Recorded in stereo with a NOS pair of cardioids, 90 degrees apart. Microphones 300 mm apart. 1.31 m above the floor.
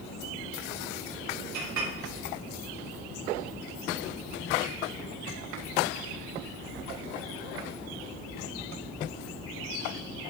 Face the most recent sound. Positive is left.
turn(degrees=-65)